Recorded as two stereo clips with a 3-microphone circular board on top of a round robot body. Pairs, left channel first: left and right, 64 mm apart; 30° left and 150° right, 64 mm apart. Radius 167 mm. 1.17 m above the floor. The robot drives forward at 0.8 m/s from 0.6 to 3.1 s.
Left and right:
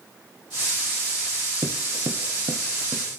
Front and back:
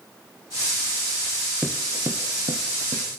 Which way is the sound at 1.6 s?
80° right.